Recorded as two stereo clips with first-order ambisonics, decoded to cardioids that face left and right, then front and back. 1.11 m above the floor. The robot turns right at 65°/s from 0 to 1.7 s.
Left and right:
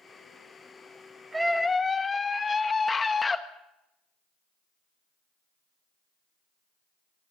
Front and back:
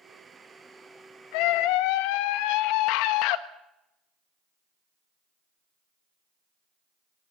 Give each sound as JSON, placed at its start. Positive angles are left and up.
{"t": 1.3, "sound": "a scream", "azimuth_deg": -10, "distance_m": 1.4}